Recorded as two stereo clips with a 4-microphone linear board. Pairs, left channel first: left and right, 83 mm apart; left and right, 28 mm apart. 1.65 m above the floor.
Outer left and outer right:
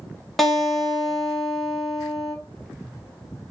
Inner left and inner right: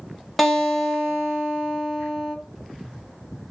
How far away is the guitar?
About 1.1 m.